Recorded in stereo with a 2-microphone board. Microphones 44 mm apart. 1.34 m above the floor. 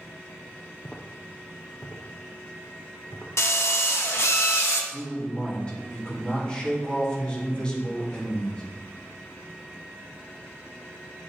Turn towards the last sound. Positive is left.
turn(degrees=15)  # may be behind; listen again after turning